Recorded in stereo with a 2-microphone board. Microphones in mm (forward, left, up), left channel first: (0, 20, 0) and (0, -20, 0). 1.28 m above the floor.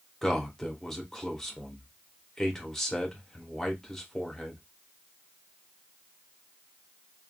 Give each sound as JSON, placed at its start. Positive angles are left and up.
{"t": 0.2, "sound": "a man speaking", "side_deg": 10, "distance_m": 0.9}